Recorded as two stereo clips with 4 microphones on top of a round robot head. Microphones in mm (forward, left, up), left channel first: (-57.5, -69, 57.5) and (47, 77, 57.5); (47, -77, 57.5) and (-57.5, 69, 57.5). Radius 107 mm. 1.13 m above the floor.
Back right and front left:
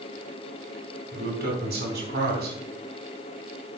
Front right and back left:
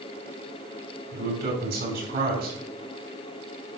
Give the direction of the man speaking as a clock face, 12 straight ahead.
9 o'clock.